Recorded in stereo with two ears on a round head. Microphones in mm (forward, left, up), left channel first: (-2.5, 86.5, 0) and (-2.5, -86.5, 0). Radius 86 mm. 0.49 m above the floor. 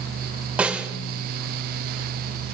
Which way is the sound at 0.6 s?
5° right (ahead or behind).